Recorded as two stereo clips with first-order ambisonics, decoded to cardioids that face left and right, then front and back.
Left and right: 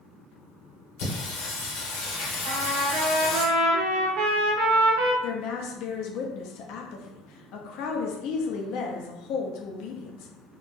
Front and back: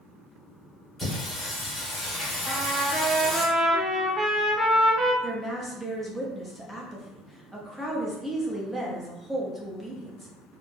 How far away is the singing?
About 1.4 m.